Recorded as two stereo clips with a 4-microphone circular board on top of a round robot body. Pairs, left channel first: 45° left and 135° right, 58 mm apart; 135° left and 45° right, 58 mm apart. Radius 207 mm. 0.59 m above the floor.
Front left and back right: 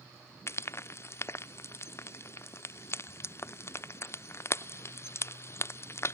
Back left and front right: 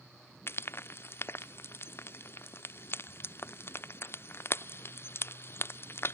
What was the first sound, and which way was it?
Frying, 85° left.